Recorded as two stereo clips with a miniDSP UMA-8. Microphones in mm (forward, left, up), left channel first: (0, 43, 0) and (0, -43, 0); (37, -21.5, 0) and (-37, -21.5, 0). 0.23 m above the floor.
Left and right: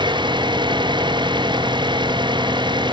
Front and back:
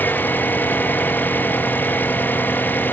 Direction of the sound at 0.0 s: 65° right.